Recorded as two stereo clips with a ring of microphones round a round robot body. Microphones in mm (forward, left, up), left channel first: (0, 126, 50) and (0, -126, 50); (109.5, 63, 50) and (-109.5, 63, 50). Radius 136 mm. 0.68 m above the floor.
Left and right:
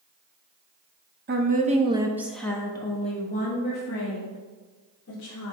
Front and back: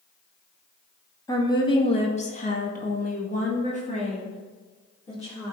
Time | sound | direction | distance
1.3 | a woman speaking | 70° right | 1.4 m